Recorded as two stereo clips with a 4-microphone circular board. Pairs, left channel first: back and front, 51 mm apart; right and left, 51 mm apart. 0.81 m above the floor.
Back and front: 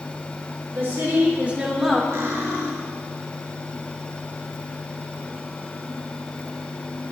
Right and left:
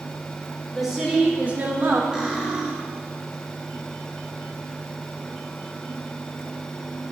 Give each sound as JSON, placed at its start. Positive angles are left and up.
{"t": 0.7, "sound": "a woman speaking", "azimuth_deg": 0, "distance_m": 1.8}
{"t": 2.1, "sound": "cutlery clinking", "azimuth_deg": 15, "distance_m": 1.9}